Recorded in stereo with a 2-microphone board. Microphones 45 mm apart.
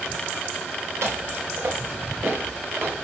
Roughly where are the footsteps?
Right.